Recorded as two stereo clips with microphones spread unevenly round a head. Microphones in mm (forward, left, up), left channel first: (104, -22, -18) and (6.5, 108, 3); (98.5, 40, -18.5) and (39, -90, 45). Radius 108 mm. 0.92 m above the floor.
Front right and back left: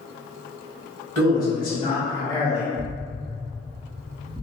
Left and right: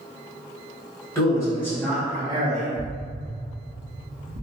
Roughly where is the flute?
No flute in this recording.